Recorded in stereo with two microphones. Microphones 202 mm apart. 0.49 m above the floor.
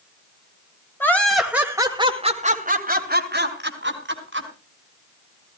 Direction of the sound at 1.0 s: 10° left (ahead or behind).